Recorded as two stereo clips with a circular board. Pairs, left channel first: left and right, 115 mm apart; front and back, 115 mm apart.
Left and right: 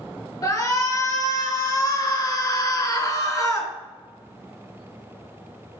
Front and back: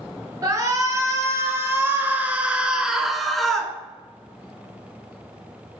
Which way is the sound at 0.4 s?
135° left.